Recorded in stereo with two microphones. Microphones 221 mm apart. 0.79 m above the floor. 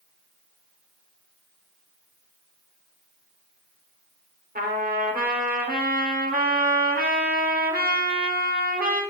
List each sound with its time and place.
4.5 s a trumpet: 40° right (ahead or behind), 1.3 m